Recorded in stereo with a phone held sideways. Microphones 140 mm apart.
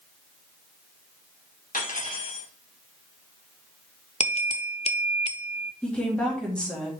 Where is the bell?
50° left (ahead or behind), 0.5 m.